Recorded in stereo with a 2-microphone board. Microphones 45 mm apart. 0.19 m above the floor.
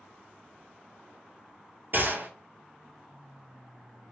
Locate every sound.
1.9 s a gunshot: 50° right (ahead or behind), 1.0 m